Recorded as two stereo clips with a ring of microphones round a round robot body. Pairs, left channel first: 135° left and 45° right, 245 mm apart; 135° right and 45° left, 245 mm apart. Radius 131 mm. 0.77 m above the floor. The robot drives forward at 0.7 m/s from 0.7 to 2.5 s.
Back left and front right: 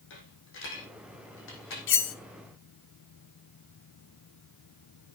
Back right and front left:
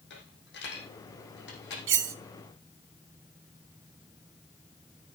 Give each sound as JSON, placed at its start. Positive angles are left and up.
{"t": 0.1, "sound": "a dropped coin", "azimuth_deg": 175, "distance_m": 5.5}
{"t": 1.9, "sound": "cutlery clinking", "azimuth_deg": 90, "distance_m": 1.2}